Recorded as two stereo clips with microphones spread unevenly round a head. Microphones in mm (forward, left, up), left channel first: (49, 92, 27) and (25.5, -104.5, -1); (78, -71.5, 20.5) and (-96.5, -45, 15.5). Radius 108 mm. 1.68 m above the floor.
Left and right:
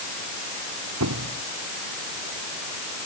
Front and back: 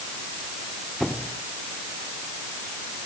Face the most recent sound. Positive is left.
turn(degrees=-100)